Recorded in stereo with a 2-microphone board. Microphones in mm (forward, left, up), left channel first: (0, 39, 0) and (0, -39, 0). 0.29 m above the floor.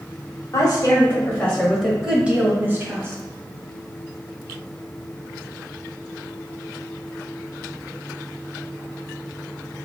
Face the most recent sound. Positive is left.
turn(degrees=-35)  # may be behind; listen again after turning